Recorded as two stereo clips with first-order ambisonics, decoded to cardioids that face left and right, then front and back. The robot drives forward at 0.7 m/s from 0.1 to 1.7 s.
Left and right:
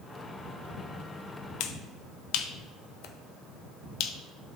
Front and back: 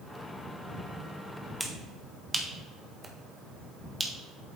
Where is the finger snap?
95° left, 0.6 m; by 4.1 s 105° left, 0.6 m.